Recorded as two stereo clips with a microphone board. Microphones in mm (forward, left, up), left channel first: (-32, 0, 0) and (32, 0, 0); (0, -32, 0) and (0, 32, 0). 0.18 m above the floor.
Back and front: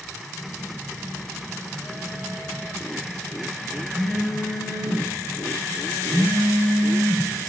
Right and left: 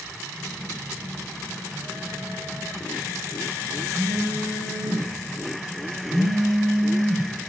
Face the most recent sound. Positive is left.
turn(degrees=70)